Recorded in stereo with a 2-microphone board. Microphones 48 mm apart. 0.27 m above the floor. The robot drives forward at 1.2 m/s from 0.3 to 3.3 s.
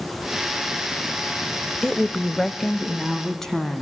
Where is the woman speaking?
15° left (ahead or behind), 0.9 m; by 3.8 s 10° left (ahead or behind), 1.8 m.